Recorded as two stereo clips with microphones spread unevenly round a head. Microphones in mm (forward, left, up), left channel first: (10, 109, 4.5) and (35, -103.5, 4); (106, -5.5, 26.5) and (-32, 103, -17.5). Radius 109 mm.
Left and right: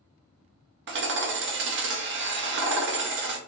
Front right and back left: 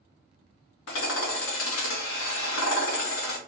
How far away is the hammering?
About 0.8 m.